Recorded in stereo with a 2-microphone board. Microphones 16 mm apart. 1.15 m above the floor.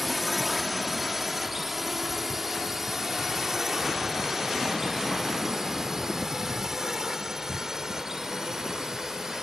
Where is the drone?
5° right (ahead or behind); by 9.4 s 35° right (ahead or behind).